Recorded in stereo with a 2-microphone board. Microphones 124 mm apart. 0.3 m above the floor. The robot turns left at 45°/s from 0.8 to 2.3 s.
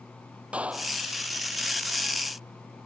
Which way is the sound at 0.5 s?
10° right (ahead or behind).